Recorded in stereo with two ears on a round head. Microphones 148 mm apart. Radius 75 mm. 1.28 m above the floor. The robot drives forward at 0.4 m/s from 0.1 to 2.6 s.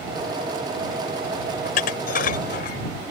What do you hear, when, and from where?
1.6 s dishes clattering: 65° left (ahead or behind); by 2.8 s 60° left (ahead or behind)